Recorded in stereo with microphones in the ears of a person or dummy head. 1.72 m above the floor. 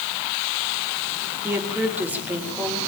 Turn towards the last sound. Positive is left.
turn(degrees=-10)  # may be behind; listen again after turning